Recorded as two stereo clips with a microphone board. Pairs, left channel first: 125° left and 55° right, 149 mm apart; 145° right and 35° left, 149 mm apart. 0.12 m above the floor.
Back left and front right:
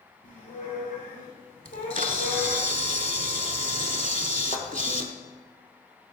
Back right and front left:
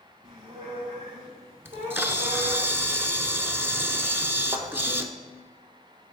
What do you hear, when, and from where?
0.2 s a squeak: 90° left, 2.5 m
1.6 s a camera shutter: 40° right, 0.6 m
4.5 s a thud: 95° left, 1.2 m